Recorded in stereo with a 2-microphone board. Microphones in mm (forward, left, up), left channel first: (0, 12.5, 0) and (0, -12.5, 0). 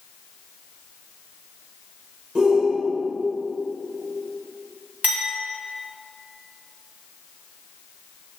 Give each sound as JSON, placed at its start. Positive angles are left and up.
{"t": 2.4, "sound": "a shout", "side_deg": -40, "distance_m": 1.9}
{"t": 5.0, "sound": "a clink", "side_deg": -85, "distance_m": 2.5}